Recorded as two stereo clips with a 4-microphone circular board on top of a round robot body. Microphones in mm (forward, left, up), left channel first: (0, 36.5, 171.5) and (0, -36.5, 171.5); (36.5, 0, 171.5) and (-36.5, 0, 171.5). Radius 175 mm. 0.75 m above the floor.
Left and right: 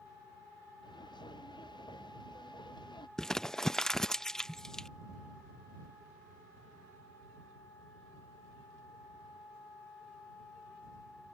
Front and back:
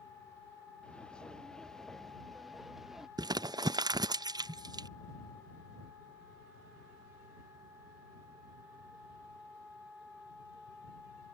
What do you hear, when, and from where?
0.8 s footsteps: 75° left; by 3.1 s 95° left
3.2 s crumpling: 175° left